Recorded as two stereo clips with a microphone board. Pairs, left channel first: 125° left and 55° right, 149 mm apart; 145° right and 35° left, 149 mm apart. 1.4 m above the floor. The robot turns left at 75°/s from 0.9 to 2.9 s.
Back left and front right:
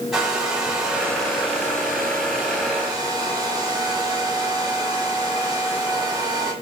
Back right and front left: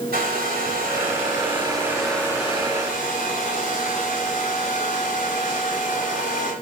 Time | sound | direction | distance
0.1 | a hair dryer | 30° left | 7.5 m